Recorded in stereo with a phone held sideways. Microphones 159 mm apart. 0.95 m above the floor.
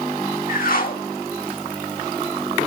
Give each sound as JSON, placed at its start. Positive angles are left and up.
{"t": 0.5, "sound": "a whoosh", "side_deg": 60, "distance_m": 1.5}